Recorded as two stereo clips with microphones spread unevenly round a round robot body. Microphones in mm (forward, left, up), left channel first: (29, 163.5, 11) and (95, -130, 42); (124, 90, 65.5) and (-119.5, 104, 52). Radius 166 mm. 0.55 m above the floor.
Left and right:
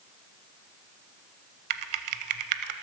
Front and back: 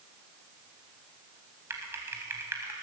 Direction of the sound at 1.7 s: 100° right.